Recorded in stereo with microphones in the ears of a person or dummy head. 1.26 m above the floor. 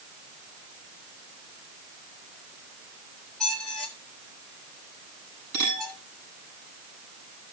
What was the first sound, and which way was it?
A squeak, 5° left (ahead or behind).